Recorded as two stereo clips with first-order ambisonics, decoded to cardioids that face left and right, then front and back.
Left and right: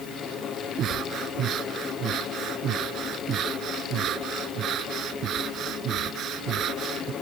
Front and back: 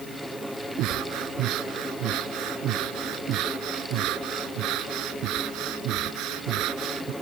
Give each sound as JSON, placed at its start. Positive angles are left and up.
{"t": 0.8, "sound": "breathing", "azimuth_deg": -145}